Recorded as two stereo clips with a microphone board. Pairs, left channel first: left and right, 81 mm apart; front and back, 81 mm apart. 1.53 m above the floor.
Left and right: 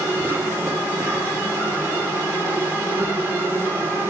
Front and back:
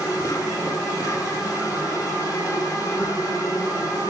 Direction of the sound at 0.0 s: 35° right.